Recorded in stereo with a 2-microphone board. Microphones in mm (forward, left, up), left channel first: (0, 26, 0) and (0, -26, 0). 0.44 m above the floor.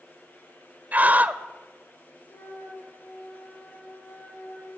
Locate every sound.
0.9 s a scream: 30° right (ahead or behind), 1.4 m
2.3 s a flute: 70° left (ahead or behind), 7 m